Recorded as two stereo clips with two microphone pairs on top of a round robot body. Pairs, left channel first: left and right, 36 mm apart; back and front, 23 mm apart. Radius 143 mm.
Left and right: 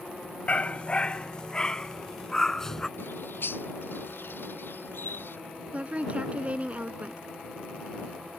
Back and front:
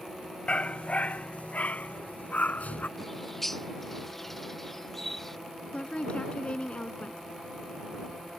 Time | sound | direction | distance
0.5 | a dog barking | 140° left | ?
3.0 | a bird | 100° left | ?
5.7 | a woman speaking | 140° right | ?